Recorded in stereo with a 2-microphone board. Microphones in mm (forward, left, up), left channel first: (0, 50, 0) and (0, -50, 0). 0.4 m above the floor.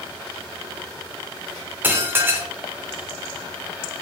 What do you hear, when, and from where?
1.8 s dishes clattering: 20° right (ahead or behind), 0.5 m